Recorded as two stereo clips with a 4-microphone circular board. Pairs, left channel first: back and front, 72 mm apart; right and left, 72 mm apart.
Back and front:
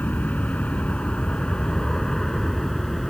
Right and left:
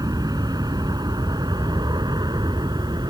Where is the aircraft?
110° left; by 3.1 s 95° left.